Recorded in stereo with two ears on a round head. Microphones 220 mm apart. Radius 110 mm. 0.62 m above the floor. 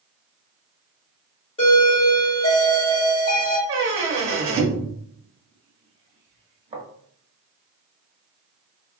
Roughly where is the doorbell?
Left.